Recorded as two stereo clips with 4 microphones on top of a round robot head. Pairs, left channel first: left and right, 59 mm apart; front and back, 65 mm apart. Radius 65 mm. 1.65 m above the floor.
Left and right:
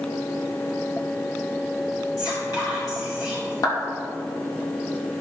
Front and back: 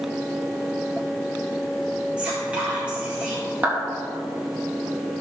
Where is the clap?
110° left, 3 m.